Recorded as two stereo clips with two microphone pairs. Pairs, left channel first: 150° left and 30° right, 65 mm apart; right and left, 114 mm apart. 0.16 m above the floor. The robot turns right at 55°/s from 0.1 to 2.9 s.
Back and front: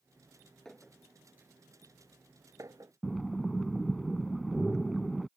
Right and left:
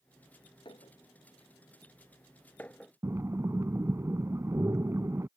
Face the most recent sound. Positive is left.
turn(degrees=70)